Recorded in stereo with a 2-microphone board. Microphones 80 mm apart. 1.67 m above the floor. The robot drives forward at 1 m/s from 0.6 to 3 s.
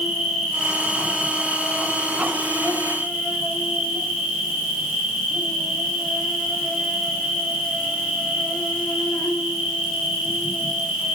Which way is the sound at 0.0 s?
Centre (ahead or behind).